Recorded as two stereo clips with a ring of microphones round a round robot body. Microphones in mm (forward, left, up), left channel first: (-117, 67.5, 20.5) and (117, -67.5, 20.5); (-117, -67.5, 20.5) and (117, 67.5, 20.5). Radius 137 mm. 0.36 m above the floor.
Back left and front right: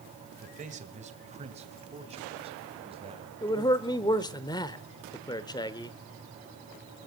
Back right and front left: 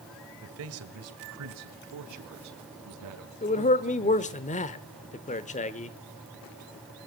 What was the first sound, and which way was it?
A man speaking, 25° left.